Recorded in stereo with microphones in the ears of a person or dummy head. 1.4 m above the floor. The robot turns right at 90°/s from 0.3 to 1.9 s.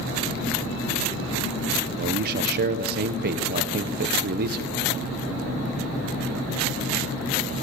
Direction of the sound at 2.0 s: 55° right (ahead or behind).